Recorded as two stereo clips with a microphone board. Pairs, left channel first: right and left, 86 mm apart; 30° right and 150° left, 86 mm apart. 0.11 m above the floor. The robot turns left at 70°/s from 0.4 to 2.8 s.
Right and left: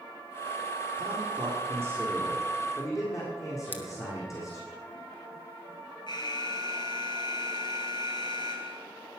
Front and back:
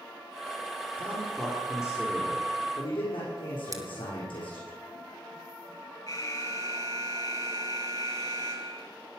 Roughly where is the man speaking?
Left.